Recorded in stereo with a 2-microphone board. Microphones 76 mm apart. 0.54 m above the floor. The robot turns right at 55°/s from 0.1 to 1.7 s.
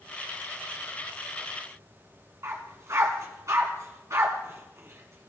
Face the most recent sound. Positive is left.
turn(degrees=-45)  # may be behind; listen again after turning